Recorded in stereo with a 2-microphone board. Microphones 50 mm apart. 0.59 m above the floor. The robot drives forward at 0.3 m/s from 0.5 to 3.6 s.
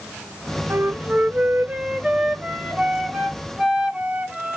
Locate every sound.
0.7 s a flute: 45° right (ahead or behind), 0.5 m; by 4.6 s 15° right (ahead or behind), 1.3 m